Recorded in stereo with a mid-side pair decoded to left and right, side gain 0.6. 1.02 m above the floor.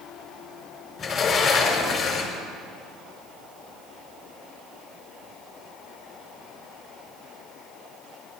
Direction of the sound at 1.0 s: 45° left.